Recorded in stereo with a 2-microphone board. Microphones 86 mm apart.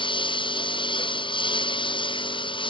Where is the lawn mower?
70° left (ahead or behind).